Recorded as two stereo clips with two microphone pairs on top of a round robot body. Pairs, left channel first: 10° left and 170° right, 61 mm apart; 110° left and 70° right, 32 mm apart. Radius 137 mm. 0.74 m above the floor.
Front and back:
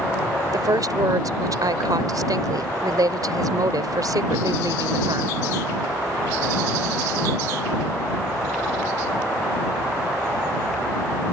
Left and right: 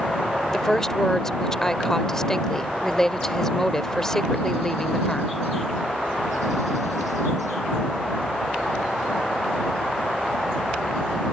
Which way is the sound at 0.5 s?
175° right.